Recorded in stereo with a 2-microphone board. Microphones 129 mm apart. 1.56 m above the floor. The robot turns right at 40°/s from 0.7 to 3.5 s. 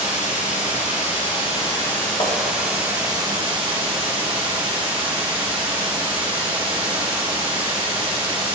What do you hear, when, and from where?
0.0 s running water: 110° left, 3 m; by 8.6 s 140° right, 3 m
2.2 s tapping: 40° left (ahead or behind), 1.2 m; by 2.4 s 35° left (ahead or behind), 1.2 m